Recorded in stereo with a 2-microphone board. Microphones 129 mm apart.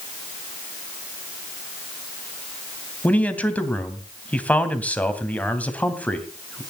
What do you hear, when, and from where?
3.0 s a man speaking: 10° left (ahead or behind), 2.5 m